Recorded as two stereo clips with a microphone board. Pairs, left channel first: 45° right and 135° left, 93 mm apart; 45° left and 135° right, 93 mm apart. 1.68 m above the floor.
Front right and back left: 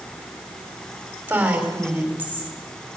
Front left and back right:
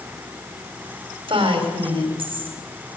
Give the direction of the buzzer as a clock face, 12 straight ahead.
I don't hear a buzzer.